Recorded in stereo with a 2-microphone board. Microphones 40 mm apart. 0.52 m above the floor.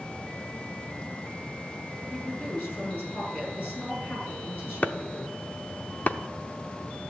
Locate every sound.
2.1 s a woman speaking: 50° left (ahead or behind), 8.5 m
4.8 s chopping: 45° left (ahead or behind), 0.7 m